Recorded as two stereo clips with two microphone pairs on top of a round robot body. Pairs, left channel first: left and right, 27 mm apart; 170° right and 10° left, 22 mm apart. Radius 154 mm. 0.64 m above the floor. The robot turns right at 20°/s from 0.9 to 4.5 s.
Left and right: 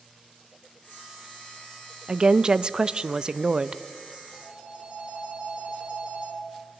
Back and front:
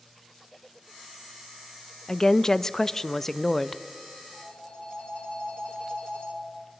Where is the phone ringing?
135° right, 7.5 m; by 6.4 s 130° right, 7.5 m.